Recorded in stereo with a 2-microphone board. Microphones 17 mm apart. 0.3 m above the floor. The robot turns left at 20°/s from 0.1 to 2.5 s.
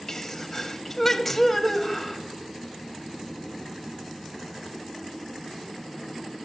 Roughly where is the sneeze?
Ahead left.